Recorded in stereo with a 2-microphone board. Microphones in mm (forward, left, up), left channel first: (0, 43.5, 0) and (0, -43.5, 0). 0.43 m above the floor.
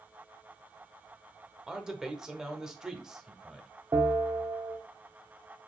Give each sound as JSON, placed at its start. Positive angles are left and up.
{"t": 1.7, "sound": "a man speaking", "side_deg": -5, "distance_m": 0.9}
{"t": 3.9, "sound": "a bell", "side_deg": -45, "distance_m": 1.1}